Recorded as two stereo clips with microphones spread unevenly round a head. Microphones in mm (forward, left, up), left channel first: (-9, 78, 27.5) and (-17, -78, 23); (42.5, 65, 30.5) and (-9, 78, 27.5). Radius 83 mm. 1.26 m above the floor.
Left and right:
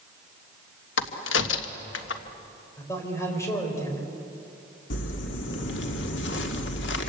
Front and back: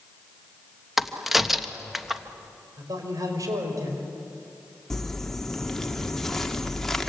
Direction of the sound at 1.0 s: 80° left.